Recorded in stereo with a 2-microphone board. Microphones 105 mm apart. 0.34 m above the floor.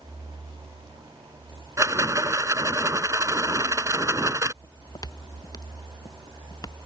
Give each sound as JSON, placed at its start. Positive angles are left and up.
{"t": 1.8, "sound": "a rattle", "side_deg": -30}
{"t": 4.6, "sound": "footsteps", "side_deg": 40}